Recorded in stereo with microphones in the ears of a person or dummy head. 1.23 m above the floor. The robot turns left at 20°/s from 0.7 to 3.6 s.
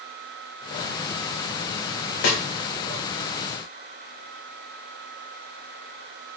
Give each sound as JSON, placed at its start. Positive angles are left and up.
{"t": 2.2, "sound": "a snare drum", "side_deg": 70, "distance_m": 0.7}